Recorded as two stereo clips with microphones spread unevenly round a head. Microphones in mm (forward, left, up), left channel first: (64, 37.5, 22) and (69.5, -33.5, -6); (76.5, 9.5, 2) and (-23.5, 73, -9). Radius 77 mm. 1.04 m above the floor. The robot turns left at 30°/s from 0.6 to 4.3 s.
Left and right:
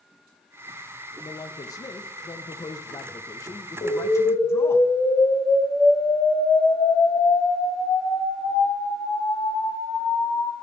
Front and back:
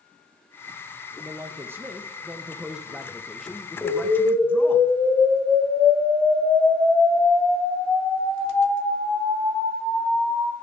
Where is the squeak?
I don't hear a squeak.